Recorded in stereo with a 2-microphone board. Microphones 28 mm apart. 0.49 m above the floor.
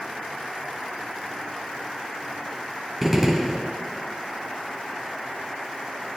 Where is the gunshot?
10° right (ahead or behind), 0.9 m.